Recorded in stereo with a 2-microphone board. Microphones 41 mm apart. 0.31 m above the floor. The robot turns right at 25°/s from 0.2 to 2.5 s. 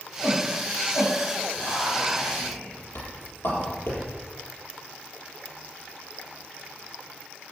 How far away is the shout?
About 6.5 m.